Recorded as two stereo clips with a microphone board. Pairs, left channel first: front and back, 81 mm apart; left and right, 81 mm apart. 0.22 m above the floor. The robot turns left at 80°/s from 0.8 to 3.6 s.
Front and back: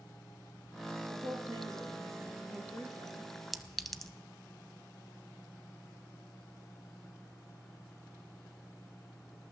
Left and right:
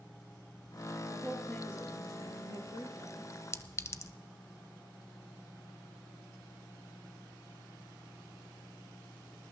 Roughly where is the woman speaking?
Behind.